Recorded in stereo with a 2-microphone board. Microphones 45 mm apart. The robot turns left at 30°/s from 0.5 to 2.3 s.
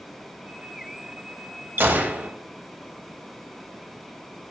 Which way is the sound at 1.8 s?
50° right (ahead or behind).